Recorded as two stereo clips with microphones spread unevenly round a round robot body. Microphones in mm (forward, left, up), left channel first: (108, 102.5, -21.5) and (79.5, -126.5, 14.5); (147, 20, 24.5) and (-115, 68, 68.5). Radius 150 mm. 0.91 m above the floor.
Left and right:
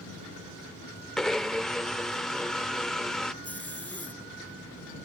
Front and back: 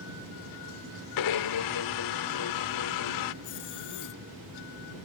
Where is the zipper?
Straight ahead.